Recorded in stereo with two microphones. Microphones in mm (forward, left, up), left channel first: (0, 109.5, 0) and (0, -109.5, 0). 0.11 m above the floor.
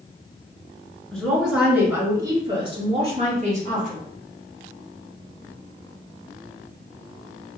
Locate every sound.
1.1 s a woman speaking: 5° left (ahead or behind), 1.3 m; by 4.0 s 40° right (ahead or behind), 2 m